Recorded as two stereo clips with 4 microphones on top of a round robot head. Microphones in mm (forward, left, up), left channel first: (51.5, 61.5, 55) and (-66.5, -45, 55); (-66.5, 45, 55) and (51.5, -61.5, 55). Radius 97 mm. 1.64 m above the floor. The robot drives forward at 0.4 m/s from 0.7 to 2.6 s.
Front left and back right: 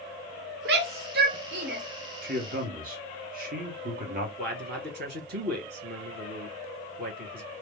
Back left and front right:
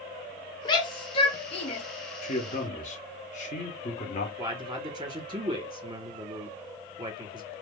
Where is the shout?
160° right, 0.7 m; by 1.8 s 170° right, 1.1 m.